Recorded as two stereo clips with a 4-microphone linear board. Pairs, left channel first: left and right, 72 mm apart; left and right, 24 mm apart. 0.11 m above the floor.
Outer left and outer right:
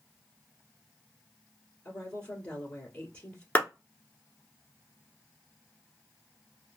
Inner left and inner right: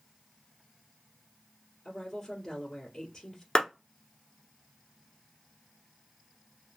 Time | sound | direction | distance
1.9 | a woman speaking | 20° left (ahead or behind) | 1.2 m
3.5 | a clap | 25° left (ahead or behind) | 1.0 m